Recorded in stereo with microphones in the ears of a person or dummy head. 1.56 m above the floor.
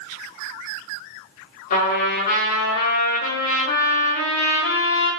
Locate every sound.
1.7 s a trumpet: 55° left (ahead or behind), 3 m